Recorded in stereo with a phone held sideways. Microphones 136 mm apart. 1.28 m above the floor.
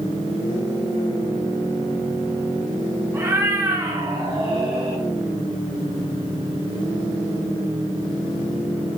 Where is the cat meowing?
20° right (ahead or behind), 1.5 m; by 5.0 s 45° right (ahead or behind), 2 m.